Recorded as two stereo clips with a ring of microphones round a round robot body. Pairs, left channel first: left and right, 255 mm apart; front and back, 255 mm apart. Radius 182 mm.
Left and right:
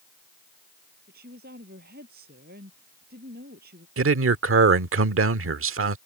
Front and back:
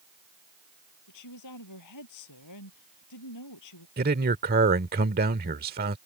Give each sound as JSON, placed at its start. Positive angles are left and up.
{"t": 1.1, "sound": "a woman speaking", "azimuth_deg": -25}
{"t": 4.0, "sound": "a man speaking", "azimuth_deg": -120}